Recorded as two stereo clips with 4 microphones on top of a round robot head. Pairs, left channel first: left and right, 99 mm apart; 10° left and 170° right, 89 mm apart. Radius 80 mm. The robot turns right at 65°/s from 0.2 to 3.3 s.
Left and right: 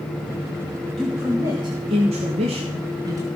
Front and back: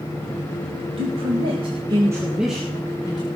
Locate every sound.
1.0 s a man speaking: 175° left, 2 m; by 3.3 s 35° right, 2 m